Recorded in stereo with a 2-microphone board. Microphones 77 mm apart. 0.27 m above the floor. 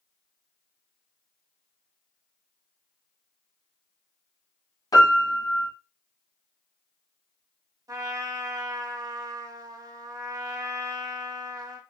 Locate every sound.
4.9 s a piano: 55° left (ahead or behind), 0.9 m
7.9 s a trumpet: 55° right (ahead or behind), 0.6 m